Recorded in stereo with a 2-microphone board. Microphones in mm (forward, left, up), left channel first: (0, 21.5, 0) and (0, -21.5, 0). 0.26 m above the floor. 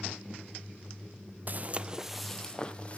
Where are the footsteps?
45° right (ahead or behind), 0.5 m; by 3.0 s 30° left (ahead or behind), 0.7 m.